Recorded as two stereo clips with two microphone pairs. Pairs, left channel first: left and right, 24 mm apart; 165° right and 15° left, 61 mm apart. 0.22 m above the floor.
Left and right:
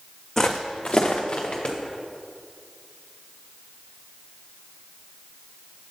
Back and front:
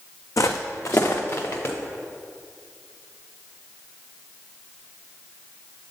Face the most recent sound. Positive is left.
turn(degrees=145)